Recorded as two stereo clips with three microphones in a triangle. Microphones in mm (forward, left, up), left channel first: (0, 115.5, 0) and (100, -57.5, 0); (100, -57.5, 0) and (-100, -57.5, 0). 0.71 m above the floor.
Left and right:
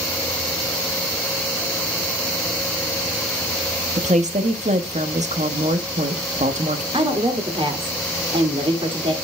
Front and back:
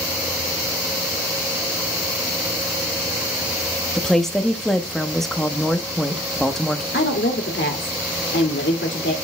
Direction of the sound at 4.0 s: 90° right.